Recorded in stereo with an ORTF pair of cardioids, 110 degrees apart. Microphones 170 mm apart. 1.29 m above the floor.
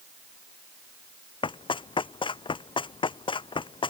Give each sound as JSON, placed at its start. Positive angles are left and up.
{"t": 1.4, "sound": "running footsteps", "azimuth_deg": 30}